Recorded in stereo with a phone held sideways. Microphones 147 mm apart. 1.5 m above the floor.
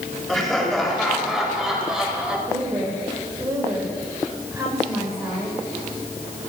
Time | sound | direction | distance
0.3 | laughter | centre (ahead or behind) | 7.5 m
2.5 | a woman speaking | 20° right (ahead or behind) | 5.5 m